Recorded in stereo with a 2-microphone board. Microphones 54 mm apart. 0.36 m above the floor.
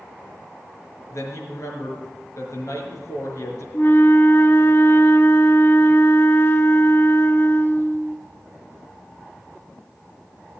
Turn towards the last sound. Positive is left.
turn(degrees=45)  # may be behind; listen again after turning